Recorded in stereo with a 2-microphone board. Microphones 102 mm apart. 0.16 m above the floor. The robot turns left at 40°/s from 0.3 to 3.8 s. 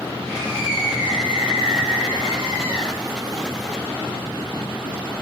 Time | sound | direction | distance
0.2 | a scream | 60° right | 5 m